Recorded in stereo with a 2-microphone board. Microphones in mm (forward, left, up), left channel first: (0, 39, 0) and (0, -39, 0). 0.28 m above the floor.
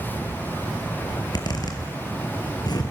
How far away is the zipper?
About 3 m.